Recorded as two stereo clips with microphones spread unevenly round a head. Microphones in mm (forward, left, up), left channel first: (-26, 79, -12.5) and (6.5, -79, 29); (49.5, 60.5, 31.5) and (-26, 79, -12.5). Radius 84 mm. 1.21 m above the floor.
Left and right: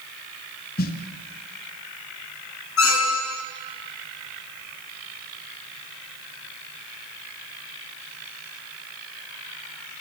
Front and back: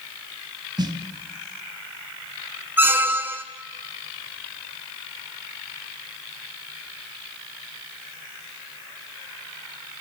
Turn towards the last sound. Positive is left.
turn(degrees=95)